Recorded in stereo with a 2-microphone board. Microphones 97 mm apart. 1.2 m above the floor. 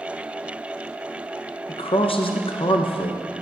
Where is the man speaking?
80° left, 0.6 m.